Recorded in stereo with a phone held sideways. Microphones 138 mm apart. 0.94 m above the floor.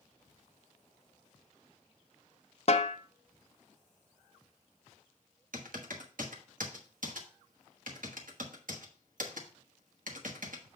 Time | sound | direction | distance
2.7 | a snare drum | 50° left (ahead or behind) | 0.7 m
5.5 | typing on a keyboard | 75° right (ahead or behind) | 1.2 m